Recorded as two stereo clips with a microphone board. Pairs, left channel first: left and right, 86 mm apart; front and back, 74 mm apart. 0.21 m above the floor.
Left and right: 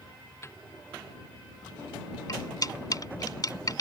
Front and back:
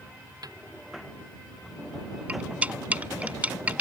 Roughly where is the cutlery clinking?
Behind left.